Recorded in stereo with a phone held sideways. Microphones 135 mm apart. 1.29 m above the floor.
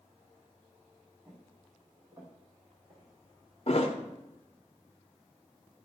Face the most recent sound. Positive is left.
turn(degrees=50)  # may be behind; listen again after turning